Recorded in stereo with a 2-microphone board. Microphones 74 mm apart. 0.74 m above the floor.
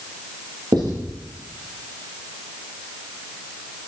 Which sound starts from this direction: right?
Writing, at 0.7 s.